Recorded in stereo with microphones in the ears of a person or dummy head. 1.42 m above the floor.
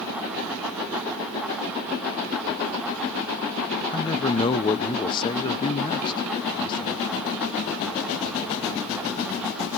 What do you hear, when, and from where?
3.9 s a man speaking: 25° left (ahead or behind), 0.8 m